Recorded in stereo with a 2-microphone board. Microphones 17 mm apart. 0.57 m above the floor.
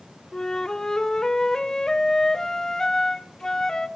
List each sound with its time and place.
0.3 s a flute: 40° left (ahead or behind), 1.1 m